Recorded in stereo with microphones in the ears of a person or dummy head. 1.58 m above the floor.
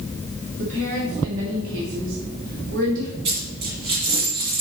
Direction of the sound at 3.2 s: 35° right (ahead or behind).